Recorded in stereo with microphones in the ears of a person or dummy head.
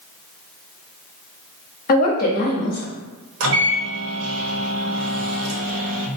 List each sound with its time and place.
1.9 s a woman speaking: 45° left (ahead or behind), 0.9 m
3.4 s a microwave: 70° right (ahead or behind), 0.9 m